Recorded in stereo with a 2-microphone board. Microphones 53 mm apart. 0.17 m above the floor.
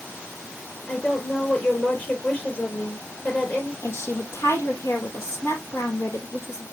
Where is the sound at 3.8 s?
55° left (ahead or behind), 6 m.